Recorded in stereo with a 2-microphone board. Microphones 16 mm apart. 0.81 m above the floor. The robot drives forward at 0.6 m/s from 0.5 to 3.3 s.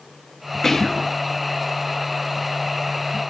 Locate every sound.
0.6 s whispering: 20° left (ahead or behind), 0.7 m; by 1.1 s 30° left (ahead or behind), 0.5 m